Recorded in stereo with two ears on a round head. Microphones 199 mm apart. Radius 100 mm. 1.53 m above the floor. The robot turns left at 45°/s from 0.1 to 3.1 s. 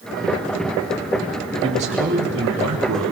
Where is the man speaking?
20° right, 4 m; by 3.1 s 90° right, 4 m.